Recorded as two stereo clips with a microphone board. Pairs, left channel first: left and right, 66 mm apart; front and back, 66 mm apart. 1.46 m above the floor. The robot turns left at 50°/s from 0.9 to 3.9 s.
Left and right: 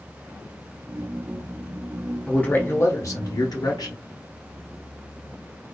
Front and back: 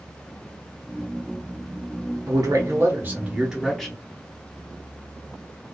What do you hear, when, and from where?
2.3 s a man speaking: 165° left, 0.8 m; by 4.0 s 80° left, 0.8 m